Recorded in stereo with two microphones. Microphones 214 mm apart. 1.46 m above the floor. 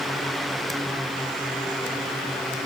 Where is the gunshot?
I don't hear a gunshot.